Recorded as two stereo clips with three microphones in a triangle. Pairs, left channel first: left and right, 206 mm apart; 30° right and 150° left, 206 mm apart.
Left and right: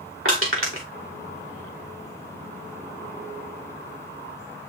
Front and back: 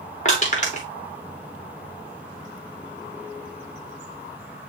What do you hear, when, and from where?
0.2 s crushing: 85° right, 3 m